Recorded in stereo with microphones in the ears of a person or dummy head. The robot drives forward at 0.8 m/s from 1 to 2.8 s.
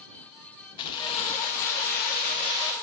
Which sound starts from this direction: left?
Keys jangling, at 0.8 s.